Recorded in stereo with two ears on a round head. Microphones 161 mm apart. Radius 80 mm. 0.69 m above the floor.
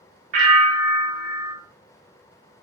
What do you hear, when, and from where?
0.3 s a bell: 45° right (ahead or behind), 0.7 m